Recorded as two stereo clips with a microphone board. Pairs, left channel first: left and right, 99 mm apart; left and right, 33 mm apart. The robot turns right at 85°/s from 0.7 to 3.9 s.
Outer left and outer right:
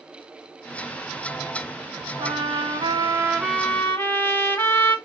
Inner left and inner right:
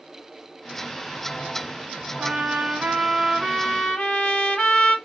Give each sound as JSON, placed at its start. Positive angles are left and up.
{"t": 2.2, "sound": "a trumpet", "azimuth_deg": -115, "distance_m": 2.0}